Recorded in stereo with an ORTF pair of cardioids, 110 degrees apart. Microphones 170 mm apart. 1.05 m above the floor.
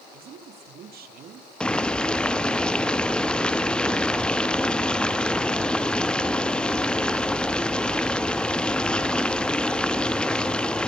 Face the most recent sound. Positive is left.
turn(degrees=5)